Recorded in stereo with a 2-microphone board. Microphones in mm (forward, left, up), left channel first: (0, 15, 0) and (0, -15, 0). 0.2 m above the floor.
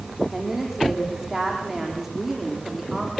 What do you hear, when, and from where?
0.3 s a woman speaking: 10° right (ahead or behind), 9 m